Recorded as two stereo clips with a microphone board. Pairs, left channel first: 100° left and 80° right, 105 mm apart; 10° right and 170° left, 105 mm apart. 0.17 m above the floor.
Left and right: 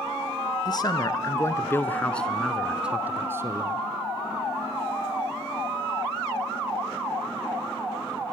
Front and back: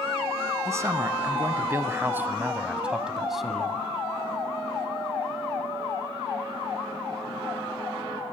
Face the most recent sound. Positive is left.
turn(degrees=-95)